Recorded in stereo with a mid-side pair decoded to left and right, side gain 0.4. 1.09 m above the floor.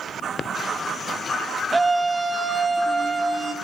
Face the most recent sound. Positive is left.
turn(degrees=-20)